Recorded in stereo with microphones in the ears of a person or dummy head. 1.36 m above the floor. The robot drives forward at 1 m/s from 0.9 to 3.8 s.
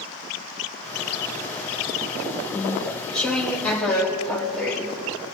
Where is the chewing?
15° left (ahead or behind), 0.5 m; by 5.3 s 5° left (ahead or behind), 1.6 m.